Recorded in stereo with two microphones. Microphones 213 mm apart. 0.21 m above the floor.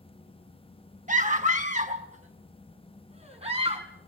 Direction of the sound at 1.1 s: 35° right (ahead or behind).